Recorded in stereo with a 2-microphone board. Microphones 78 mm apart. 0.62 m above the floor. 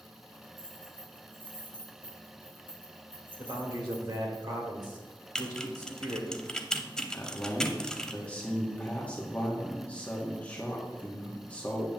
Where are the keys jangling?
75° right (ahead or behind), 3.5 m.